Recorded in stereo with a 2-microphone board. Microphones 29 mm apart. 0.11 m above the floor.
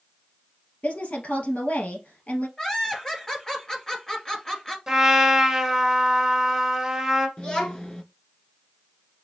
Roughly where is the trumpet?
Centre.